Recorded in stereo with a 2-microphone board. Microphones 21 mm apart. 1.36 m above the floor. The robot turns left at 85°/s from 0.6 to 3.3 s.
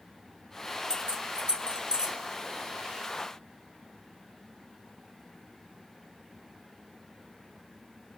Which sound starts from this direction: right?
Keys jangling, at 0.9 s.